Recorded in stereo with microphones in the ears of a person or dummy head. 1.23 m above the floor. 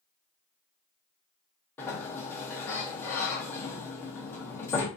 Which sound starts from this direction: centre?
A sliding door, at 1.8 s.